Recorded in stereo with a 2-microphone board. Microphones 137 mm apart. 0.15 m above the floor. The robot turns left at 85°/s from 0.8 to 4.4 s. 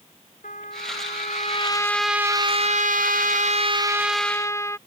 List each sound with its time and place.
0.4 s a trumpet: 105° left; by 4.8 s 160° left